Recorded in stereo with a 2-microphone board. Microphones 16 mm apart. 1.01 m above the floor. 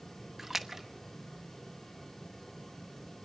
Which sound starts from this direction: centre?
A splash, at 0.4 s.